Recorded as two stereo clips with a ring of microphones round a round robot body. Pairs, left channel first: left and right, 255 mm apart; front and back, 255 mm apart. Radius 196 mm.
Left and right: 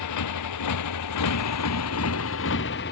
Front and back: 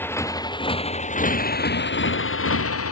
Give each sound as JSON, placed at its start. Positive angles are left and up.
{"t": 0.0, "sound": "a motorcycle", "azimuth_deg": 80}